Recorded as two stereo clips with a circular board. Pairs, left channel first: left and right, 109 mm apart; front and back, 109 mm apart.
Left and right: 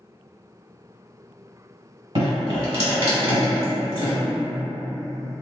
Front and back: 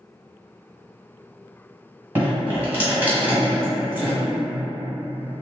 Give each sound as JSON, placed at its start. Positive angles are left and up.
{"t": 2.1, "sound": "dripping", "azimuth_deg": -110, "distance_m": 1.5}